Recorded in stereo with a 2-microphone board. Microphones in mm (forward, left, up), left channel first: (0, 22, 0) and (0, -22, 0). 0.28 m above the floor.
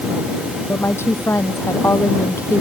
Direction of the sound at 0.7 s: 85° left.